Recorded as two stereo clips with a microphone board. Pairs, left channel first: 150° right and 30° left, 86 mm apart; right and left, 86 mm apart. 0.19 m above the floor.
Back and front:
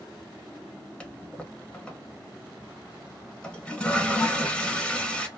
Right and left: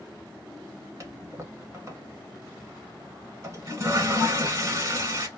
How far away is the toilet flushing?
About 1.1 m.